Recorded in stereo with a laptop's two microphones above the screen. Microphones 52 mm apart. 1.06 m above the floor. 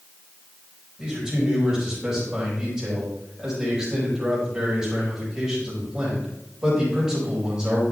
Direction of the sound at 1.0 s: 15° right (ahead or behind).